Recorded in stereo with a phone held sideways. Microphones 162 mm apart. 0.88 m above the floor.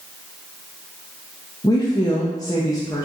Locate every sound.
1.6 s a woman speaking: 25° left (ahead or behind), 0.5 m